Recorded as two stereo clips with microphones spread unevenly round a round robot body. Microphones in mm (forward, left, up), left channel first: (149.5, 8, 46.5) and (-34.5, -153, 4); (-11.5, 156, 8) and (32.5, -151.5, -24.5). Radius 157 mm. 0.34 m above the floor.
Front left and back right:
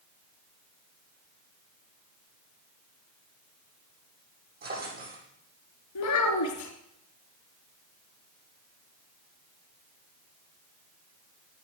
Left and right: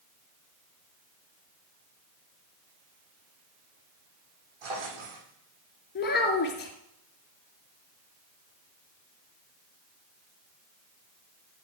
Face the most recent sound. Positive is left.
turn(degrees=40)